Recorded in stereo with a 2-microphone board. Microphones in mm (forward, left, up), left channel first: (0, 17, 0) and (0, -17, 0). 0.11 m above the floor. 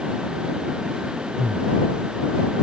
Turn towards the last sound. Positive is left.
turn(degrees=-45)  # may be behind; listen again after turning